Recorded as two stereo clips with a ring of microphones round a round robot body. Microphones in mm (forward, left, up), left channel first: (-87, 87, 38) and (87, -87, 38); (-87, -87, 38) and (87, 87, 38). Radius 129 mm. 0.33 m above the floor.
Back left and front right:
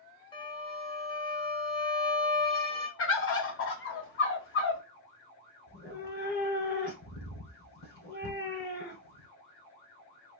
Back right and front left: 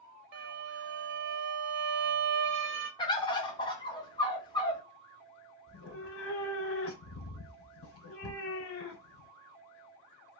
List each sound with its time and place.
0.3 s a violin: 65° left, 0.8 m
3.0 s a bird: 155° left, 0.9 m
5.7 s a cat meowing: 175° right, 0.9 m